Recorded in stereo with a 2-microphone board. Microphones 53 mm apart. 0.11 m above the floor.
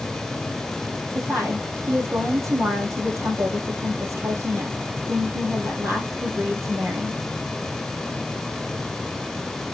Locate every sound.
1.1 s a woman speaking: 65° right (ahead or behind), 3 m